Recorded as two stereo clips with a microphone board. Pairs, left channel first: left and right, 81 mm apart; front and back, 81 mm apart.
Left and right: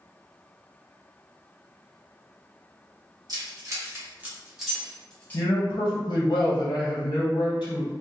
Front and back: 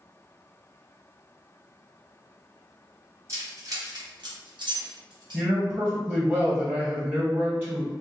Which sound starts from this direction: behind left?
A man speaking, at 5.3 s.